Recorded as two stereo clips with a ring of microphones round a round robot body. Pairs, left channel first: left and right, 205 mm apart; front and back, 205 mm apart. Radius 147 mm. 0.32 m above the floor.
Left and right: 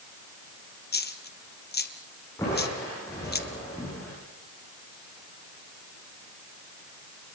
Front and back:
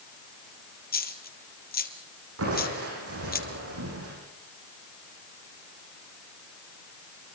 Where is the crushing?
170° left, 9.5 m.